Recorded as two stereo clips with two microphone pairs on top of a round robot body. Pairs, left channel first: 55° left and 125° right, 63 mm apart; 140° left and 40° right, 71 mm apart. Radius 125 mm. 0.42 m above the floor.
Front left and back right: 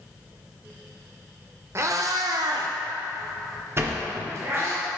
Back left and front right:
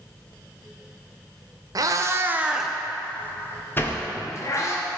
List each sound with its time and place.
1.8 s a cat meowing: 75° right, 0.6 m; by 4.8 s 175° right, 1.4 m
3.8 s a sliding door: 170° right, 1.3 m